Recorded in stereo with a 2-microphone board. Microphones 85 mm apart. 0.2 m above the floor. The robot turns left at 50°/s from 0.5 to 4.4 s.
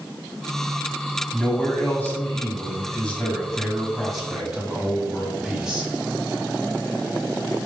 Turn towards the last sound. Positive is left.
turn(degrees=-10)  # may be behind; listen again after turning